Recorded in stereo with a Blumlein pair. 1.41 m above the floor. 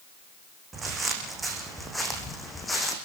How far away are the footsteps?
About 5 m.